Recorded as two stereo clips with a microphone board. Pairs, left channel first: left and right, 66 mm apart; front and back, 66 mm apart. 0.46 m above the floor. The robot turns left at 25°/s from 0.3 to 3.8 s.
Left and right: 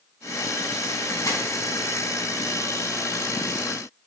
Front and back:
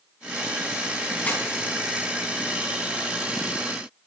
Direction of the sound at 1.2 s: 65° left.